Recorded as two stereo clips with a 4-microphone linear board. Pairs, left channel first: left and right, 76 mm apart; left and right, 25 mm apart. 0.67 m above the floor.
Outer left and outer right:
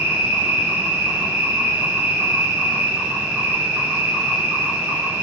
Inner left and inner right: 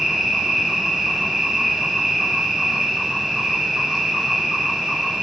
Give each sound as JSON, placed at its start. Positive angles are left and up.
{"t": 0.0, "sound": "an insect", "side_deg": -20, "distance_m": 2.5}